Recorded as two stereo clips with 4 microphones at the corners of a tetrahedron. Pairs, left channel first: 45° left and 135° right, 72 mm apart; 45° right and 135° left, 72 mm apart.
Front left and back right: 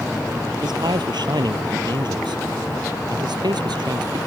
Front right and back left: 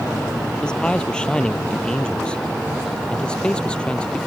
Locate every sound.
0.6 s a man speaking: 125° right; by 4.2 s 120° right